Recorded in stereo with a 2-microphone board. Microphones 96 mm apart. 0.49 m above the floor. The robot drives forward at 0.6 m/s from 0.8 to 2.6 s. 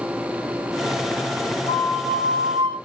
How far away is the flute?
About 3.5 m.